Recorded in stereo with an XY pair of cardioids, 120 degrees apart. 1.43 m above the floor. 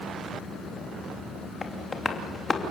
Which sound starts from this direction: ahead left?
Tapping, at 1.6 s.